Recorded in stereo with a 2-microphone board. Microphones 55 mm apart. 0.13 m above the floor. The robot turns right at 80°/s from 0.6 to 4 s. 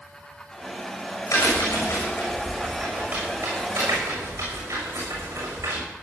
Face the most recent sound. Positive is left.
turn(degrees=-70)  # may be behind; listen again after turning